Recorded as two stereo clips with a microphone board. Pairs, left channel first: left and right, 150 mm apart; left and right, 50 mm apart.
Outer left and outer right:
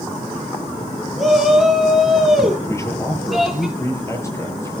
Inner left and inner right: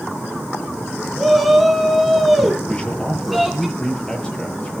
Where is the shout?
Centre (ahead or behind), 5 m.